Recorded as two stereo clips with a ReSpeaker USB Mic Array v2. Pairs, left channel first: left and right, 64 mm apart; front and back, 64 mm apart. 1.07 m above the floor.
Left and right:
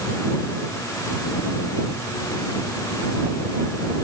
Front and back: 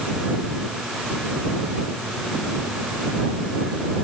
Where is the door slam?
I don't hear a door slam.